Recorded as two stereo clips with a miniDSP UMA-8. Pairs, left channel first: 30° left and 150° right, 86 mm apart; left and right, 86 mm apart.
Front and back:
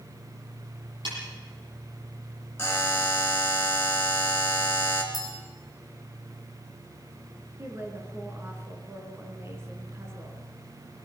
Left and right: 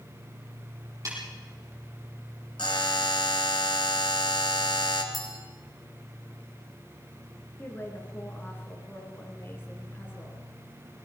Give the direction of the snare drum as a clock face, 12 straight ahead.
5 o'clock.